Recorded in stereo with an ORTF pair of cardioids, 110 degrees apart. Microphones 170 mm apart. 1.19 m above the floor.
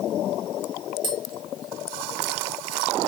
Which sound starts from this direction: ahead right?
Tapping, at 1.0 s.